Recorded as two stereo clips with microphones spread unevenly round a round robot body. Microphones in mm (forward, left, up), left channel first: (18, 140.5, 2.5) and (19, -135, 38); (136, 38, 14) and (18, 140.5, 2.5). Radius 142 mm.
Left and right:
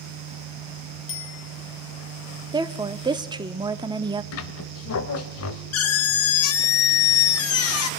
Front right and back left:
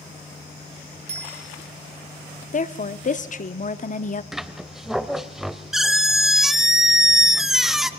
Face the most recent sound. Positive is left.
turn(degrees=50)